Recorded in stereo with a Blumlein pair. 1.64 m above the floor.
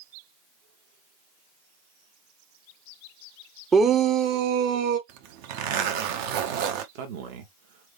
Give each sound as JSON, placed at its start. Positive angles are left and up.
{"t": 3.7, "sound": "a shout", "azimuth_deg": -15, "distance_m": 0.7}
{"t": 5.1, "sound": "a zipper", "azimuth_deg": -45, "distance_m": 0.9}
{"t": 7.0, "sound": "a man speaking", "azimuth_deg": -45, "distance_m": 1.4}